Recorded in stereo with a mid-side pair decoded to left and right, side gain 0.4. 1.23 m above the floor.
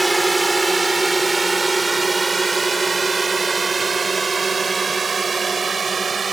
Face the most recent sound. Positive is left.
turn(degrees=-40)